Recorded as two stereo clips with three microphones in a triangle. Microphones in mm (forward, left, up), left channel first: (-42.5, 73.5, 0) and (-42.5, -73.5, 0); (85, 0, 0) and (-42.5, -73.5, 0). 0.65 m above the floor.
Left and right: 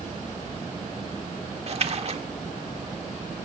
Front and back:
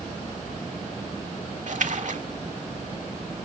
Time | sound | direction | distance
1.7 | a splash | 130° right | 1.5 m